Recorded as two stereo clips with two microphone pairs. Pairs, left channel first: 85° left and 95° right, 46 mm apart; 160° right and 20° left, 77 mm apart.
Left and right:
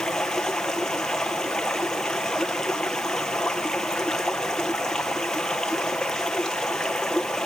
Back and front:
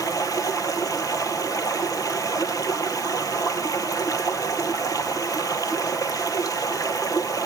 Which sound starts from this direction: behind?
Running water, at 0.0 s.